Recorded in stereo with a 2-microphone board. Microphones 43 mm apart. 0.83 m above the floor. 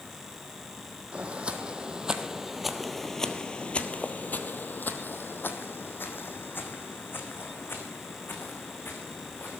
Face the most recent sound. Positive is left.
turn(degrees=55)  # may be behind; listen again after turning